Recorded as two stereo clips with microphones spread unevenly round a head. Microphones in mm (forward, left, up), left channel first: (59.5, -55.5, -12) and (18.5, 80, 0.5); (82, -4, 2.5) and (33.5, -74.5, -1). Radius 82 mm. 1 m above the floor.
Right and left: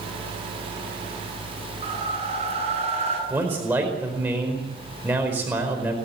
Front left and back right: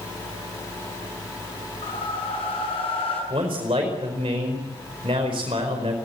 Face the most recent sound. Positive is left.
turn(degrees=-175)